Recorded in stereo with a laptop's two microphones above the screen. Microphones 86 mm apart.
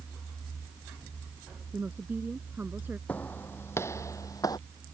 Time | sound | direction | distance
1.7 | a woman speaking | 20° right (ahead or behind) | ?
3.1 | footsteps | 20° left (ahead or behind) | ?